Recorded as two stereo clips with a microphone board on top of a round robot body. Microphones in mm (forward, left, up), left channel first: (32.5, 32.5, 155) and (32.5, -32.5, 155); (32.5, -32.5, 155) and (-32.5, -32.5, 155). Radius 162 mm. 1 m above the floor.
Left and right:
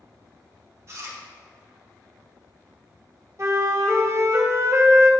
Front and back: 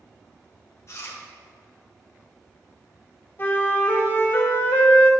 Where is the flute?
55° right, 1.3 m.